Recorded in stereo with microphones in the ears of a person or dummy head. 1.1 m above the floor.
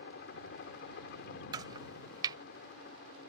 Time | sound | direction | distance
0.0 | a helicopter | 55° left (ahead or behind) | ?
1.5 | chopping | 20° right (ahead or behind) | ?